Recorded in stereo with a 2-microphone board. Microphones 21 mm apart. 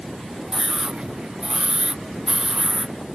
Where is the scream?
40° right (ahead or behind).